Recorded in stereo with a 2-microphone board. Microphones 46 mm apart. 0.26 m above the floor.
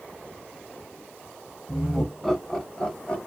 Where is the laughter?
5° right (ahead or behind), 1.3 m; by 3.2 s 30° left (ahead or behind), 1.3 m.